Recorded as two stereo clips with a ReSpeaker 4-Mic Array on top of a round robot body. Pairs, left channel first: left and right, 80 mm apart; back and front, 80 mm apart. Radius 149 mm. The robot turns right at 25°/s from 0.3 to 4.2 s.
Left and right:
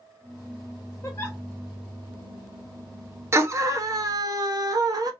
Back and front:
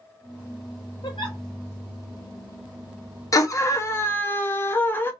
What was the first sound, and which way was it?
A giggle, 145° left.